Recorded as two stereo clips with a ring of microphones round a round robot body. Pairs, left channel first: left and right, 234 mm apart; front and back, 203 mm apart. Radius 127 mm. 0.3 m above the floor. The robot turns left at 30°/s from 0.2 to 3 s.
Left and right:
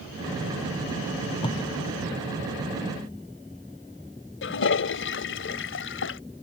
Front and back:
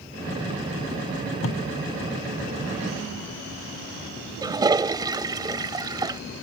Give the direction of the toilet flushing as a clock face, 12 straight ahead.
8 o'clock.